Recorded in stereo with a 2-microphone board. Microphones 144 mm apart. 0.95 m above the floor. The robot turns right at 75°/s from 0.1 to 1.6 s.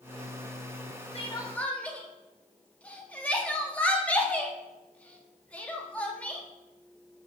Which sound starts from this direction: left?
Crying, at 1.1 s.